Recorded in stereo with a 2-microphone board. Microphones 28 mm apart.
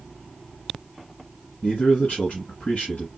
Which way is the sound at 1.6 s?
55° left (ahead or behind).